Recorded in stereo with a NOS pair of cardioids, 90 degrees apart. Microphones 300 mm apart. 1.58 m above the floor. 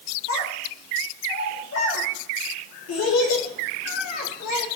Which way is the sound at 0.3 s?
65° left.